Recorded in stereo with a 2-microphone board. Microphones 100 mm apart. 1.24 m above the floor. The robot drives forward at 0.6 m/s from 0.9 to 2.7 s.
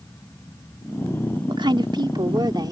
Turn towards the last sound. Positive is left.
turn(degrees=-45)  # may be behind; listen again after turning